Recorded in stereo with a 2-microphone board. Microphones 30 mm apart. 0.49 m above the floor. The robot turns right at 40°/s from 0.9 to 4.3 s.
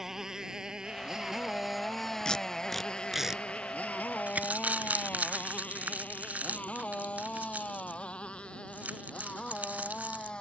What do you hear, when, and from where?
0.0 s a motorcycle: 15° right (ahead or behind); by 10.4 s 30° left (ahead or behind)
2.2 s tape being pulled: 25° left (ahead or behind); by 4.5 s 55° right (ahead or behind)
4.3 s crumpling: 60° right (ahead or behind)